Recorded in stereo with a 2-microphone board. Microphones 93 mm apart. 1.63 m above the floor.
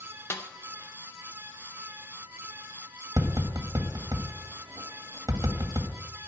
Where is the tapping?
40° right (ahead or behind), 1.8 m.